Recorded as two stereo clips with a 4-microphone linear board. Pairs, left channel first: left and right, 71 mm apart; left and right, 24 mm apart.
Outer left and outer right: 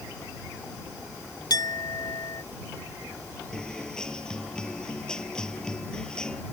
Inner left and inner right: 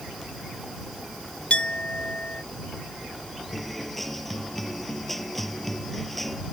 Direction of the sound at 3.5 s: 10° left (ahead or behind).